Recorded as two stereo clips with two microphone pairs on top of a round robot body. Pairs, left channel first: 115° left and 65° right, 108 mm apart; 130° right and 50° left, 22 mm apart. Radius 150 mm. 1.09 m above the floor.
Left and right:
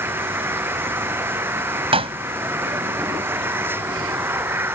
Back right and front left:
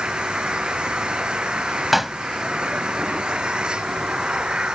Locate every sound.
0.0 s an engine running: 5° left
1.9 s a pop: 25° right